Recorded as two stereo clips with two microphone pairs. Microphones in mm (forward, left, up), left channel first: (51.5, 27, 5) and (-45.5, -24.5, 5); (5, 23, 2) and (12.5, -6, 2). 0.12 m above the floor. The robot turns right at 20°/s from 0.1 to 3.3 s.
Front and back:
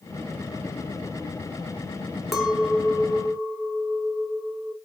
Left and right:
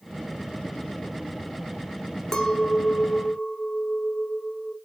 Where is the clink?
120° left, 0.6 m; by 4.8 s 140° left, 0.6 m.